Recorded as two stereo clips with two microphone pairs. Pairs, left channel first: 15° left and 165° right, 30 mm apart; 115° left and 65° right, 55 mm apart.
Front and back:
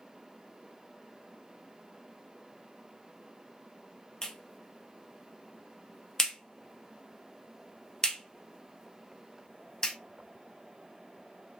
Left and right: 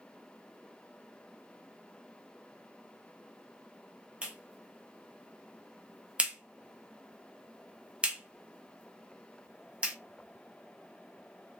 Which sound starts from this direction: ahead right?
A clap, at 4.2 s.